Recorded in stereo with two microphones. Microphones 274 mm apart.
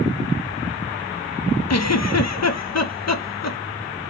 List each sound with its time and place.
1.7 s a giggle: 70° left (ahead or behind), 0.5 m